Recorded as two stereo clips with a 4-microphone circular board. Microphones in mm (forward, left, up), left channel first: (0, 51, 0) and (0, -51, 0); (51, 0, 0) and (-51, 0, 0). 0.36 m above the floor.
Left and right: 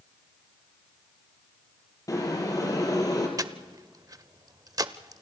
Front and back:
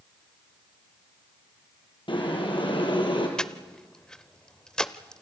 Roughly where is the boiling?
Ahead left.